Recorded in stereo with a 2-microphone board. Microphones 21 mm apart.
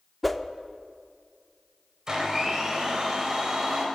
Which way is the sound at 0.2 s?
Centre (ahead or behind).